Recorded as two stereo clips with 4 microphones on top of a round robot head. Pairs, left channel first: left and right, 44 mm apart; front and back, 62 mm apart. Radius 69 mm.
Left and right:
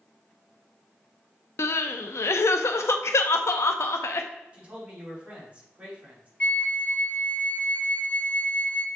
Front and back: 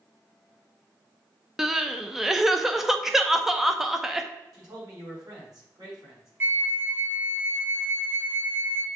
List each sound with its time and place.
1.6 s crying: 95° left, 0.6 m
4.5 s a man speaking: 150° right, 3.5 m
6.4 s a flute: 135° left, 0.6 m